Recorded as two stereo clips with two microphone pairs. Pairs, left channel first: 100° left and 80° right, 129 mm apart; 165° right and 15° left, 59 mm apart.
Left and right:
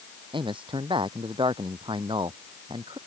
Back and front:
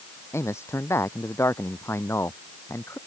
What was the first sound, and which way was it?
A man speaking, 130° right.